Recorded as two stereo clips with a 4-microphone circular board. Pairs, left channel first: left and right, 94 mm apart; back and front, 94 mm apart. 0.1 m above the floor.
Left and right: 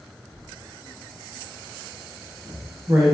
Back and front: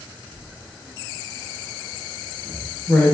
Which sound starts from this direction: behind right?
Writing, at 0.3 s.